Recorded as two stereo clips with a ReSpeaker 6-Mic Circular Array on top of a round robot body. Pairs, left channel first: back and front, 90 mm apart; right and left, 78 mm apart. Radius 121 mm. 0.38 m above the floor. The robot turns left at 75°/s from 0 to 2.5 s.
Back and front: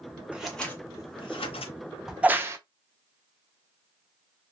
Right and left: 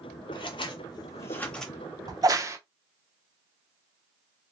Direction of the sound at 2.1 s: 85° left.